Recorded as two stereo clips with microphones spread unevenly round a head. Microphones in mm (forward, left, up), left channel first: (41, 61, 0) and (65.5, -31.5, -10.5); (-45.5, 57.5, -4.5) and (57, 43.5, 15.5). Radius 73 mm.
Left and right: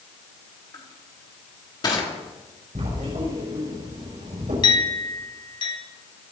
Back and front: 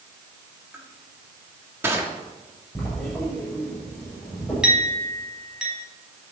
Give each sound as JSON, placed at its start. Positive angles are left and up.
{"t": 0.7, "sound": "crushing", "azimuth_deg": 60, "distance_m": 3.5}
{"t": 2.8, "sound": "writing", "azimuth_deg": -105, "distance_m": 6.5}
{"t": 4.6, "sound": "a clink", "azimuth_deg": 70, "distance_m": 5.0}